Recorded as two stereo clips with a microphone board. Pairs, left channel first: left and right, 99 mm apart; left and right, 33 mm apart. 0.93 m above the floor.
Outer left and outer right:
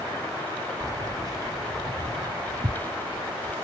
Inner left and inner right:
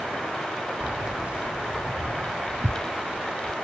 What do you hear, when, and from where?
0.8 s keys jangling: 35° right (ahead or behind); by 3.5 s 50° right (ahead or behind)